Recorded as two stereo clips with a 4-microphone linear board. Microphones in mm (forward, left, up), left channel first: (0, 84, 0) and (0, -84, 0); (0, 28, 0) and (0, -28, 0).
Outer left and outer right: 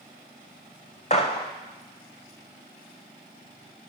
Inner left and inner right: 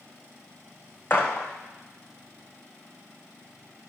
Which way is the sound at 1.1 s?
45° left (ahead or behind).